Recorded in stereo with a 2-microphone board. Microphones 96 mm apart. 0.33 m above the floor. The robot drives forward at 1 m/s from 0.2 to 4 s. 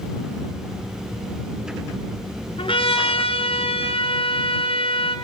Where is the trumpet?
65° left (ahead or behind), 3.5 m; by 5.2 s 75° left (ahead or behind), 3 m.